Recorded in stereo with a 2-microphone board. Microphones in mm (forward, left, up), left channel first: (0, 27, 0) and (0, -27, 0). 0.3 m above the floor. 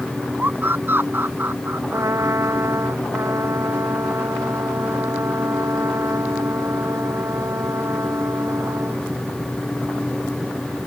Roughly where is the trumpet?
Right.